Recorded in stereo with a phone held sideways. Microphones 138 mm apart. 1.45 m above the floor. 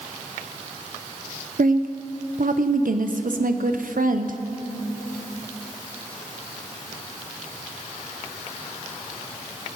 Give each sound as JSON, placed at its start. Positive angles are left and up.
{"t": 1.6, "sound": "a woman speaking", "side_deg": -80, "distance_m": 0.6}